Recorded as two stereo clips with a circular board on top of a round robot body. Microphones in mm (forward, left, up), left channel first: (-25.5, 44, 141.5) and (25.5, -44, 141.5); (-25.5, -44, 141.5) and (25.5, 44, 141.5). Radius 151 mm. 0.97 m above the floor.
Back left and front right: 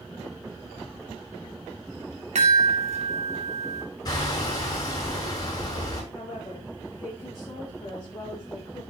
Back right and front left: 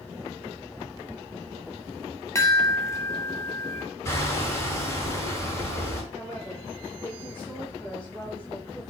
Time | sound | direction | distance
2.4 | a chime | 55° right | 2.5 m
4.0 | hammering | 175° left | 6.5 m
6.1 | a woman speaking | 175° right | 4.5 m